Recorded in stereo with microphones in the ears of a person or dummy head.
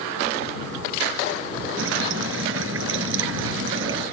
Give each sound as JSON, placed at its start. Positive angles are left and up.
{"t": 1.8, "sound": "dripping", "side_deg": -80}